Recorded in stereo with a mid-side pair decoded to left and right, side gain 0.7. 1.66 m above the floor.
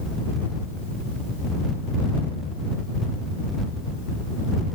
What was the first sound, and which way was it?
Only background noise.